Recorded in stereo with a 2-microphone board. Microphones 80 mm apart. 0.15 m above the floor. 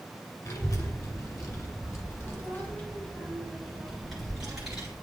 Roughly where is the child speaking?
Left.